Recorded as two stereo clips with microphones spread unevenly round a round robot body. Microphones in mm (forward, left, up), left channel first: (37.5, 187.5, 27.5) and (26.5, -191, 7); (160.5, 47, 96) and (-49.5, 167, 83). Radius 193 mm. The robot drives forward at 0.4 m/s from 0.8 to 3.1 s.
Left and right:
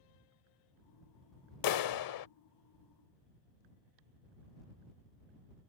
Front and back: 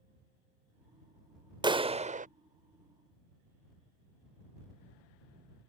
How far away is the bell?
I don't hear a bell.